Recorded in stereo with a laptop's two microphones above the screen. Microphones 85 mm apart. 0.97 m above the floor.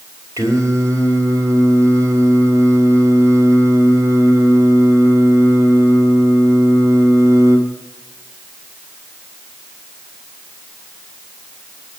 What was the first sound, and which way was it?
Singing, 45° right (ahead or behind).